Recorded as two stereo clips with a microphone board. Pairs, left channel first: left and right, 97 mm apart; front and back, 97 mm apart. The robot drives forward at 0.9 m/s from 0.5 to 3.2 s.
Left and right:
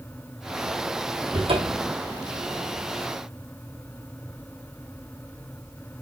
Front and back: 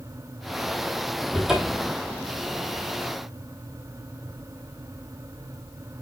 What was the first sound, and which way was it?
A cupboard door, 90° right.